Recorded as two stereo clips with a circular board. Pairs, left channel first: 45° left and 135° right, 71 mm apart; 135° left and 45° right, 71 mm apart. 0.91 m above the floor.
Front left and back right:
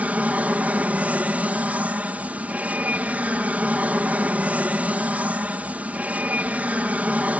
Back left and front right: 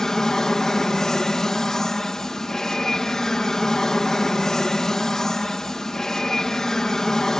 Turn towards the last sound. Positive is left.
turn(degrees=-155)